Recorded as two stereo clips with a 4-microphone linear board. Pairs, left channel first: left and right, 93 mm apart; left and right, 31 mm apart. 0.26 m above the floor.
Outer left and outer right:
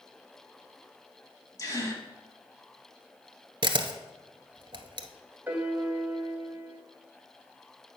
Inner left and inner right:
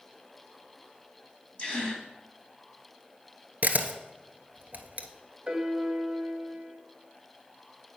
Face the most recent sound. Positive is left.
turn(degrees=-20)  # may be behind; listen again after turning